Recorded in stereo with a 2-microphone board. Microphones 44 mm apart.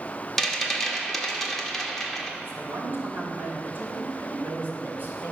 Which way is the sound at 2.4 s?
50° right (ahead or behind).